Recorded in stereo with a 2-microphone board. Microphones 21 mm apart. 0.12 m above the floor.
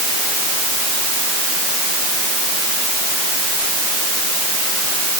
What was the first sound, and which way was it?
Only background noise.